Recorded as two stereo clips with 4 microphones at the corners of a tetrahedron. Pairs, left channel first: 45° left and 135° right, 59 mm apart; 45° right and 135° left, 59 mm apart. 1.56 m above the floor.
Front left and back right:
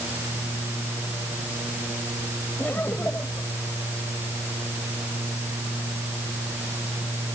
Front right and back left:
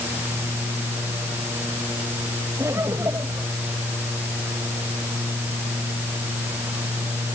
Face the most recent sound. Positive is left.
turn(degrees=105)